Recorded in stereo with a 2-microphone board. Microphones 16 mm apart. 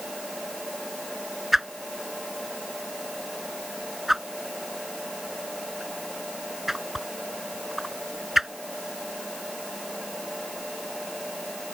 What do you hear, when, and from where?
1.5 s a whoosh: 10° right (ahead or behind)